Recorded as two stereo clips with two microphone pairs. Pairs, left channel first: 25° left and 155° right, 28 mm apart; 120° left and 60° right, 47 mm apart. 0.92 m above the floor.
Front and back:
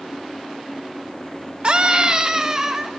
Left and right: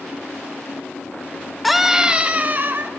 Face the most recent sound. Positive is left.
turn(degrees=-85)